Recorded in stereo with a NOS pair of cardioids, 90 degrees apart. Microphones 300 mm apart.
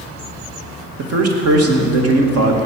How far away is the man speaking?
About 2.5 m.